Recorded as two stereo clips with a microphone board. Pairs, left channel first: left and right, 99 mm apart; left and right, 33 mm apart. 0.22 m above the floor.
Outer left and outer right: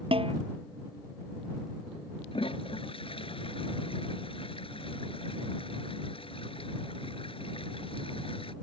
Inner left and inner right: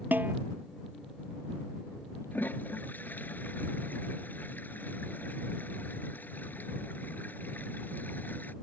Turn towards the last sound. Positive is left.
turn(degrees=65)  # may be behind; listen again after turning